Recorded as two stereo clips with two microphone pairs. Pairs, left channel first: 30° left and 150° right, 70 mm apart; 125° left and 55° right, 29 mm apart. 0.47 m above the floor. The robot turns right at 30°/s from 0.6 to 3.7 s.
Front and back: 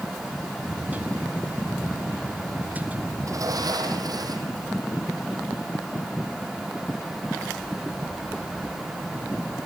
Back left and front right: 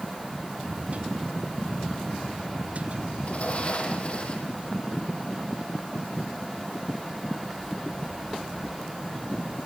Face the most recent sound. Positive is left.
turn(degrees=175)